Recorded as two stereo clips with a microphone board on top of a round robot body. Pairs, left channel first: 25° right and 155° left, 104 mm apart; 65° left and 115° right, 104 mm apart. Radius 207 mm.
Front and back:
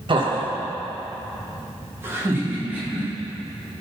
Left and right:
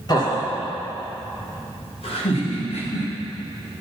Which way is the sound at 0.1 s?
120° left.